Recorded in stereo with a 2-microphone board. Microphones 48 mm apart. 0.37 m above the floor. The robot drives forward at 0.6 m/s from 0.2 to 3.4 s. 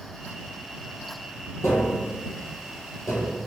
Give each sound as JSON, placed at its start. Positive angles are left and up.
{"t": 1.6, "sound": "tapping", "side_deg": 75, "distance_m": 3.0}